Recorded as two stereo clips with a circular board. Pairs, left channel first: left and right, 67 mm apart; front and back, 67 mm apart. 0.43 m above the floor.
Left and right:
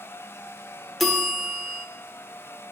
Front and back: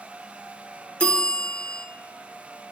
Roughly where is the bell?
Ahead.